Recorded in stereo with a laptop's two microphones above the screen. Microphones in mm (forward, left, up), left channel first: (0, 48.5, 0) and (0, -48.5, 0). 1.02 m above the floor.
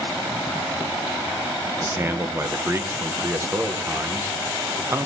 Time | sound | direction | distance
1.8 | a man speaking | 25° right (ahead or behind) | 0.8 m